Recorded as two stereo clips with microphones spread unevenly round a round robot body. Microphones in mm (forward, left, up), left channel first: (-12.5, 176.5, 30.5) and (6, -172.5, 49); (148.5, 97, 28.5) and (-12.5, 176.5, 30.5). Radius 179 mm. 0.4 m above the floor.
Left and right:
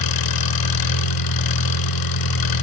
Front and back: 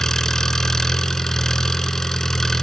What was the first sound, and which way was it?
An engine running, 60° left.